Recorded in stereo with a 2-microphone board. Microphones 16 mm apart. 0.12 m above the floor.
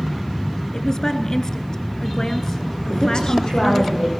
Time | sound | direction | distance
0.7 | a woman speaking | 35° left (ahead or behind) | 1.5 m
2.9 | a woman speaking | 55° left (ahead or behind) | 6.5 m